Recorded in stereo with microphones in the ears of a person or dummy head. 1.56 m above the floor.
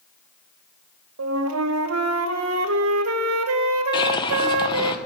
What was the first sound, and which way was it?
A flute, 80° right.